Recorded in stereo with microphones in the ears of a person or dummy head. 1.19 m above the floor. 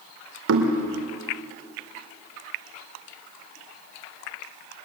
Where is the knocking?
85° right, 2.5 m.